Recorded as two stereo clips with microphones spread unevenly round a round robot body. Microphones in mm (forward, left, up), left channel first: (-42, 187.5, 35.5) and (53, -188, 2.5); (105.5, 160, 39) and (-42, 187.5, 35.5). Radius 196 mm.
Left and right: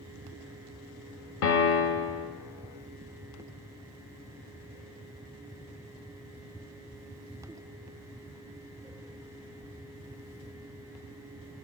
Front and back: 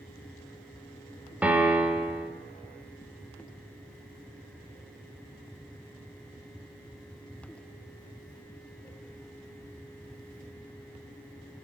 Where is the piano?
90° left, 0.5 m.